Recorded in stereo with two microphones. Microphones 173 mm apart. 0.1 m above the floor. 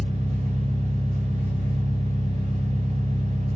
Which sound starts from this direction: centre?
An engine running, at 0.0 s.